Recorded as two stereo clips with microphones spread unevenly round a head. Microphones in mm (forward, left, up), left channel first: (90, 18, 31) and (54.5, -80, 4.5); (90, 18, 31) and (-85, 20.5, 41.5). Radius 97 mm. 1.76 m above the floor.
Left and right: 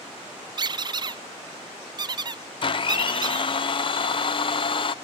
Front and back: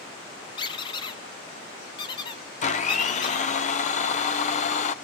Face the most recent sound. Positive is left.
turn(degrees=50)